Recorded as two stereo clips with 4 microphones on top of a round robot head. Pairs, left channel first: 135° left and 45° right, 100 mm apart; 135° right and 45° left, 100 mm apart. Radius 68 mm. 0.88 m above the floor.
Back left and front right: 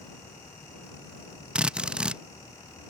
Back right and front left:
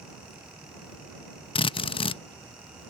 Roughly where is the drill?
Behind right.